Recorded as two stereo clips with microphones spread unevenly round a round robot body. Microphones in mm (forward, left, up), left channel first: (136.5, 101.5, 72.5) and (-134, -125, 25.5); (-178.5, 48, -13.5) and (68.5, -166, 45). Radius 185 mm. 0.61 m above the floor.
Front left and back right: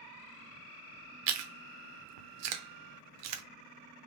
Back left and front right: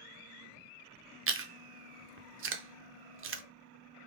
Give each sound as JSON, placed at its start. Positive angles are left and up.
{"t": 1.3, "sound": "chewing", "azimuth_deg": -95, "distance_m": 0.7}